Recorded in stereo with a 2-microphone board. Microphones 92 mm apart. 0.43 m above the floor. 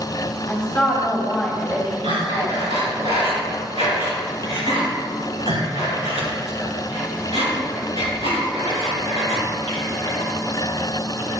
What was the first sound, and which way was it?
A woman speaking, 10° left (ahead or behind).